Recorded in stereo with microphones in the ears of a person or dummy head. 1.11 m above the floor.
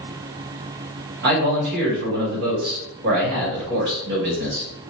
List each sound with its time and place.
1.2 s a man speaking: 50° right (ahead or behind), 1.8 m